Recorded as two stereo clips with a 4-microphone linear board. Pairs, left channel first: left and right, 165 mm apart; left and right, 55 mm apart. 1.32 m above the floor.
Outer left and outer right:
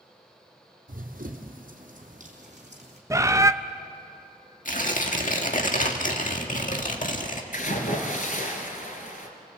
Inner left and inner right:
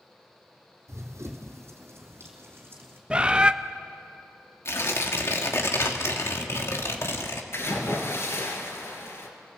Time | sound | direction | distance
0.9 | running footsteps | 60° right (ahead or behind) | 2.5 m
3.1 | a bird | 20° right (ahead or behind) | 0.6 m
4.7 | tearing paper | 60° left (ahead or behind) | 1.8 m
7.5 | a splash | 60° left (ahead or behind) | 3.5 m